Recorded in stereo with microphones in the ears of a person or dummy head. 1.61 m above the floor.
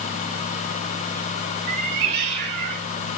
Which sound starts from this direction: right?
A cat meowing, at 1.7 s.